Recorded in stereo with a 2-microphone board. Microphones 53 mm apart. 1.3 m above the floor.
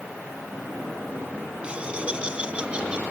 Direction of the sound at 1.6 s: 20° right (ahead or behind).